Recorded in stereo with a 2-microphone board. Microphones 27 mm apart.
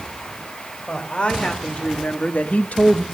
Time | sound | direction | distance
0.9 | a woman speaking | 45° left (ahead or behind) | 3.5 m